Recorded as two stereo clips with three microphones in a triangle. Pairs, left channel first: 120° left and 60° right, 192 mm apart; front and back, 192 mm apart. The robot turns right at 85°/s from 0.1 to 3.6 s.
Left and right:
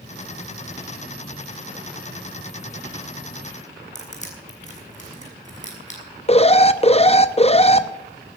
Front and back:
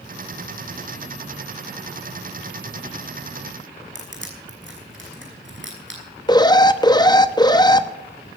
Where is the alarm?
65° left, 0.8 m.